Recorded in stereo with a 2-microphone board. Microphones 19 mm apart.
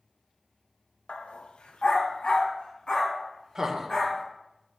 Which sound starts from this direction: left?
A dog barking, at 1.1 s.